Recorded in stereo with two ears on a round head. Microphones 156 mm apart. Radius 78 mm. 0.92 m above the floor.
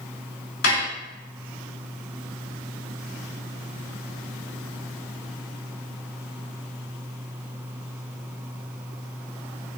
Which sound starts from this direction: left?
Dishes clattering, at 0.6 s.